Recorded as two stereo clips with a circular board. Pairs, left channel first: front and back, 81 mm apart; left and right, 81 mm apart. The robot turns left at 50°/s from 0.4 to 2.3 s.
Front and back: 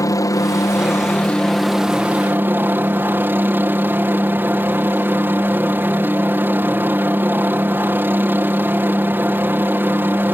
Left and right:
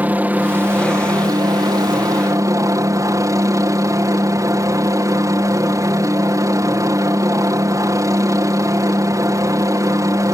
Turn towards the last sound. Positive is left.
turn(degrees=-120)